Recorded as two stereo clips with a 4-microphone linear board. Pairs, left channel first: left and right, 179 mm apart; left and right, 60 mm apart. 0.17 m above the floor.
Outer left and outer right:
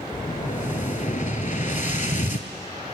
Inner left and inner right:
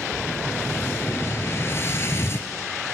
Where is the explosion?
45° left (ahead or behind), 0.8 m.